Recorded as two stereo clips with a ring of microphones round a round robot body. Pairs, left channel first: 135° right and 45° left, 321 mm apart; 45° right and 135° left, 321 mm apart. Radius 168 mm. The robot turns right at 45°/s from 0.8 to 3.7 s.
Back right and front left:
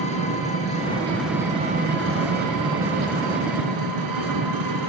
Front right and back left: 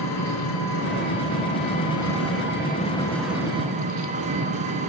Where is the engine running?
65° right, 6 m; by 4.9 s 65° left, 6 m.